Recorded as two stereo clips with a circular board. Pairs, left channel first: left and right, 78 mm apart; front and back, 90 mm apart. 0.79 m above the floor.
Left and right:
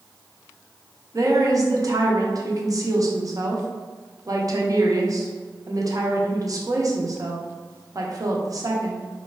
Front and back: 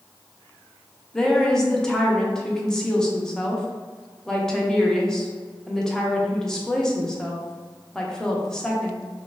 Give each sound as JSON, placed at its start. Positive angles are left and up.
{"t": 1.1, "sound": "a woman speaking", "azimuth_deg": -80, "distance_m": 0.5}